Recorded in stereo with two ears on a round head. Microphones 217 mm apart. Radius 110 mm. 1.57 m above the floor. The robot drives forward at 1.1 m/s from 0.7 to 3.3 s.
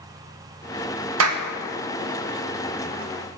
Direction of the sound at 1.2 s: 60° right (ahead or behind).